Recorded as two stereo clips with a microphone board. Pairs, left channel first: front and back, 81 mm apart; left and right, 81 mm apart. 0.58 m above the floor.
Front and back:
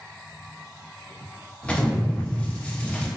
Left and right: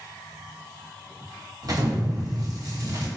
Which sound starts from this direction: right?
An explosion, at 1.6 s.